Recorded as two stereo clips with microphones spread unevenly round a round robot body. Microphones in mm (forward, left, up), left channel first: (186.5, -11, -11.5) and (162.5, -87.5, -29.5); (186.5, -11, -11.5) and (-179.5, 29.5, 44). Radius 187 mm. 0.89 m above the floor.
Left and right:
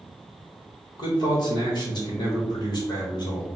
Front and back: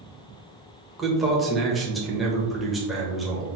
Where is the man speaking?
75° left, 1.0 m.